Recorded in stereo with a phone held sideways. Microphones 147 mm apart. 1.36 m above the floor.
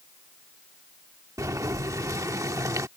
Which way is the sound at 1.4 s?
20° right (ahead or behind).